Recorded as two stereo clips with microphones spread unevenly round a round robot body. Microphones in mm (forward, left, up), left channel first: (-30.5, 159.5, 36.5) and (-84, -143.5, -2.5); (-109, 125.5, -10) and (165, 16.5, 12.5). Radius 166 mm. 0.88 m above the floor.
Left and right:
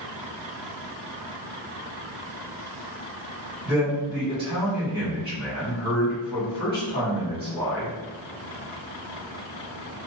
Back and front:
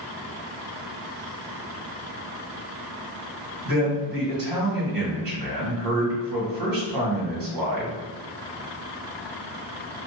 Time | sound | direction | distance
3.6 | a man speaking | 15° right | 1.5 m